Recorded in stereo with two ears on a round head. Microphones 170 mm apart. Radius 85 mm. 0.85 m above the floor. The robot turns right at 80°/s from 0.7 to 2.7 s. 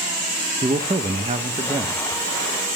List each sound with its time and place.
0.6 s a man speaking: 125° right, 0.6 m; by 2.0 s 20° right, 0.6 m